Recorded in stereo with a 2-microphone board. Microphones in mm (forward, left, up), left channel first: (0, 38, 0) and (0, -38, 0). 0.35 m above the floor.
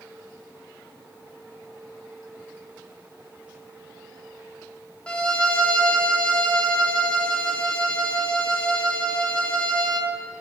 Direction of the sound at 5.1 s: 10° left (ahead or behind).